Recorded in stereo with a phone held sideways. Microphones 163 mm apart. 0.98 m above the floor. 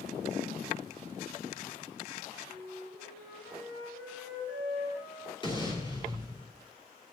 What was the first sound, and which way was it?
A flute, 80° left.